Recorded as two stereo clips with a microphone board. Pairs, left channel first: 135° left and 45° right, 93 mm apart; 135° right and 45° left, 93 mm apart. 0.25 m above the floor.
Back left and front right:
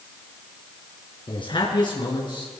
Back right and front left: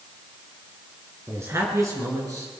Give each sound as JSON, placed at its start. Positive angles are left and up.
{"t": 1.3, "sound": "a man speaking", "azimuth_deg": 105, "distance_m": 3.0}